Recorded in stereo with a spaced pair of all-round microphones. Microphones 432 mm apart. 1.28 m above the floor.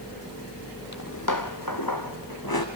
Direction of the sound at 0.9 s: 40° left (ahead or behind).